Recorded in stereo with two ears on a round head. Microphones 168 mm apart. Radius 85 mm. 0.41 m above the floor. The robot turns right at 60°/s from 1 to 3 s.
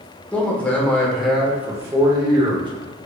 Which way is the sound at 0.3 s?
5° left (ahead or behind).